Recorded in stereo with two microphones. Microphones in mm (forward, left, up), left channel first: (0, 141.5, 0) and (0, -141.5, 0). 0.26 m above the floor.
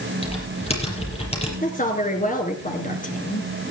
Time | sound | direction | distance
0.2 | typing on a keyboard | 20° left (ahead or behind) | 6 m
1.6 | a woman speaking | 30° left (ahead or behind) | 3.5 m